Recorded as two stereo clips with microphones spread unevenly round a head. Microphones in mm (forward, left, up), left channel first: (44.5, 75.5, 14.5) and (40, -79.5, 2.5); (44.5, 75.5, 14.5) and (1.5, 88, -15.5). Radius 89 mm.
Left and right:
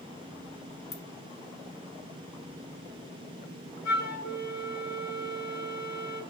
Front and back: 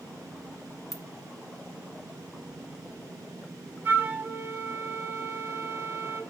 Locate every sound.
0.9 s a ringtone: 75° left, 1.3 m
3.9 s a flute: 100° left, 1.1 m